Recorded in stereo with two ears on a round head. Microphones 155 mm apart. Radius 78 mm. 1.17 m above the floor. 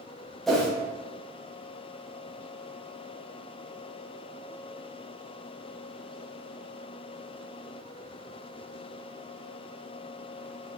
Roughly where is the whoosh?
Centre.